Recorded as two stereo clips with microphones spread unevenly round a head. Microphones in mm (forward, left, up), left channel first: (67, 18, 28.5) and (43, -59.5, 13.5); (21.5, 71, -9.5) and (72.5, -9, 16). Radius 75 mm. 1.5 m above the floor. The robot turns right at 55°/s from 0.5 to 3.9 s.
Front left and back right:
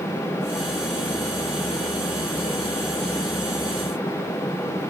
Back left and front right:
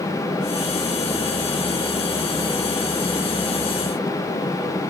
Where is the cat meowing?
No cat meowing in this recording.